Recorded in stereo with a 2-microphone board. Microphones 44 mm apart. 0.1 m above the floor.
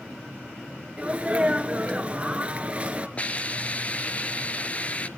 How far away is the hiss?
About 0.5 m.